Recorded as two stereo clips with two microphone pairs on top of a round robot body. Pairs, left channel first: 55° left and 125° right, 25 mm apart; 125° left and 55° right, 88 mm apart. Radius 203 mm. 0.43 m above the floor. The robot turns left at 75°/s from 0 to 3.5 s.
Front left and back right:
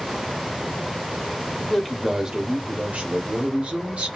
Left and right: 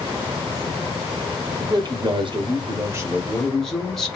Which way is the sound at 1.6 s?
5° right.